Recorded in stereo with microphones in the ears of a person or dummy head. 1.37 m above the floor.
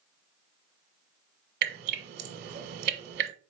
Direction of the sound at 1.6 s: 55° right (ahead or behind).